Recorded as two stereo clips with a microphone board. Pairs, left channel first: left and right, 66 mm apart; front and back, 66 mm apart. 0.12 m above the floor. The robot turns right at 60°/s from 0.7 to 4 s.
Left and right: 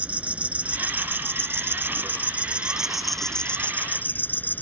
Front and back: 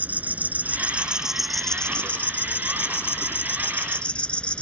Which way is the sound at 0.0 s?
140° right.